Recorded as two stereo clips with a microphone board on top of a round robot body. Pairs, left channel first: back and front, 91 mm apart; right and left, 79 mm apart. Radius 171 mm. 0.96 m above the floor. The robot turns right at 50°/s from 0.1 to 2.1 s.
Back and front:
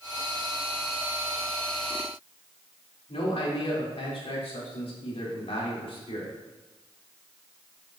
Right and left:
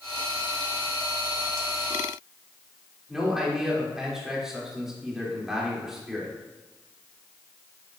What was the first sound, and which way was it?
A man speaking, 175° left.